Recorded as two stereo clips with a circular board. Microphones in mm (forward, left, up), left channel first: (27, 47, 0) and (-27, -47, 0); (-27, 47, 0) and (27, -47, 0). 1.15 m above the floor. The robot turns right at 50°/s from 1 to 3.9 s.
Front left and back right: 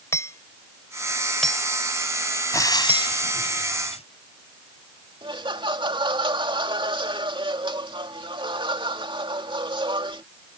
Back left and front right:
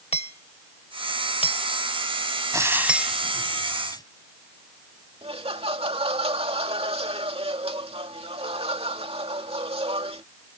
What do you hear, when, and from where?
0.1 s hammering: 125° left; by 3.2 s 130° right
2.5 s frying: straight ahead; by 4.0 s 65° left
5.2 s laughter: 80° right